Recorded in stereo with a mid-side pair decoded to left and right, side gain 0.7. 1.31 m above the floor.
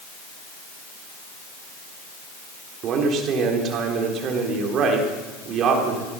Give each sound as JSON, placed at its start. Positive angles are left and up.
{"t": 2.8, "sound": "a man speaking", "azimuth_deg": -45, "distance_m": 3.5}